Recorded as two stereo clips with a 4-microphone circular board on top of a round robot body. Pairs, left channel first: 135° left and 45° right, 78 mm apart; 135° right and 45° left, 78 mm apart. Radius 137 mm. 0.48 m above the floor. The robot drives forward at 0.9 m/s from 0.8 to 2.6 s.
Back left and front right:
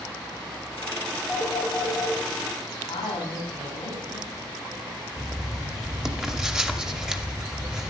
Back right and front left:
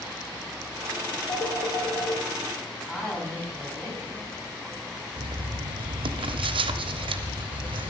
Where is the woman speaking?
145° left, 5 m.